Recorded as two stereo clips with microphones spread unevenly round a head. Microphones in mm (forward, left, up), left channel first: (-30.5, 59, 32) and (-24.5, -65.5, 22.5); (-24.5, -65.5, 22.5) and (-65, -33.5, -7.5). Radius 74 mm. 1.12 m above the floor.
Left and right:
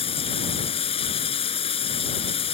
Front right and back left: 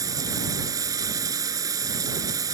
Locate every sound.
0.0 s running water: 135° left